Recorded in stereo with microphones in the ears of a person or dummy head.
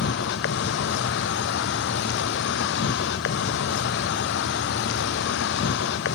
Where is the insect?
60° left (ahead or behind), 0.8 m.